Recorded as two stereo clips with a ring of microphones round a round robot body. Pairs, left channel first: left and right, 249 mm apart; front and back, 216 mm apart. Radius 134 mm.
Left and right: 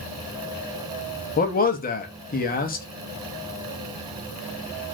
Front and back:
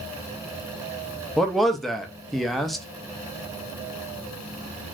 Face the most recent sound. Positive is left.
turn(degrees=90)